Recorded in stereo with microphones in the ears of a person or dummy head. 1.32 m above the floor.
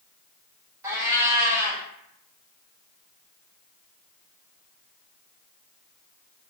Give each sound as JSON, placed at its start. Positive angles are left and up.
{"t": 0.8, "sound": "a cat meowing", "side_deg": -15, "distance_m": 1.0}